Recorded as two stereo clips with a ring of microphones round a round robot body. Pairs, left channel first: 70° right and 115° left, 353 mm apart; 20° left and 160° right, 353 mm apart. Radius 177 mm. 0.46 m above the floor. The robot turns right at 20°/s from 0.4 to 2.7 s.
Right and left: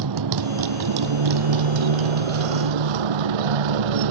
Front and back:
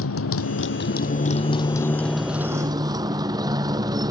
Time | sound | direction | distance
0.0 | a motorcycle | 75° left | ?